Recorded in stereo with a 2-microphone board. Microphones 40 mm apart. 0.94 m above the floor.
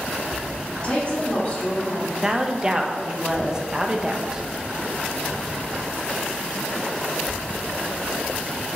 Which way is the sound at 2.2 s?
15° right (ahead or behind).